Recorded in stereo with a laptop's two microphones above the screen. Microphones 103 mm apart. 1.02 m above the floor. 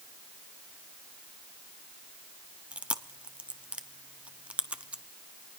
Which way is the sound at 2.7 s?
10° right (ahead or behind).